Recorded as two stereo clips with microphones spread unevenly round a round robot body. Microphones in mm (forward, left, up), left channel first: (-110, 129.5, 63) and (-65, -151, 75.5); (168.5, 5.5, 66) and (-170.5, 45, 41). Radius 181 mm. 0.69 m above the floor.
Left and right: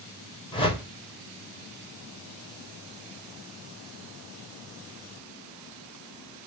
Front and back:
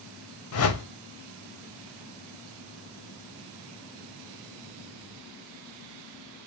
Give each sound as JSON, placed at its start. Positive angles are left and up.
{"t": 0.5, "sound": "a whoosh", "azimuth_deg": 30, "distance_m": 1.0}